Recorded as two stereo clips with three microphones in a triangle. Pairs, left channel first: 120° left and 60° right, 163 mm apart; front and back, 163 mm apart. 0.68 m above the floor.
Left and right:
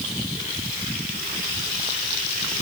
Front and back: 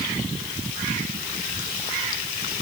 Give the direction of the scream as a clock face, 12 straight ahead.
I don't hear a scream.